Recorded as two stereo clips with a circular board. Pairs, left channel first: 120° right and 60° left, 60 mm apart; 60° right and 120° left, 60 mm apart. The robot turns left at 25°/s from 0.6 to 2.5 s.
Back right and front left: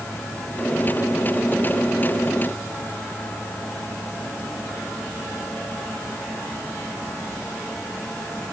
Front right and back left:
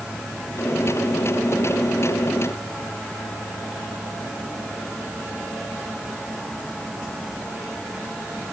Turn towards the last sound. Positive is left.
No sound to turn to.